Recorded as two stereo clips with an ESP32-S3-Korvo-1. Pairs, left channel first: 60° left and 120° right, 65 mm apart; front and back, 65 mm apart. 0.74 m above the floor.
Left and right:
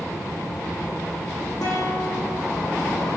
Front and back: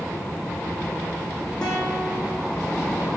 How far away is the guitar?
About 9 m.